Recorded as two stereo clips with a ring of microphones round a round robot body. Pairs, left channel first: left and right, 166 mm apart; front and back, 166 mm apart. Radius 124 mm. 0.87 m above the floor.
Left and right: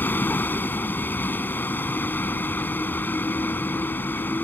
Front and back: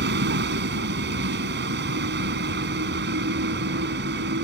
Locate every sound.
0.0 s a vehicle: 170° left